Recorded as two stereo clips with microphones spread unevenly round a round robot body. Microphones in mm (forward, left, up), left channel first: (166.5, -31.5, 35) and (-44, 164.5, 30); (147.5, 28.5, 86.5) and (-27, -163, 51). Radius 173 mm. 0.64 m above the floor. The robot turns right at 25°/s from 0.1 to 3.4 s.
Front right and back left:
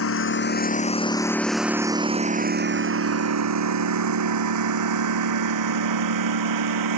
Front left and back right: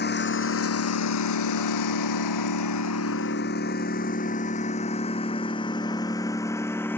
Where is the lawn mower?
Straight ahead; by 7.0 s 130° left.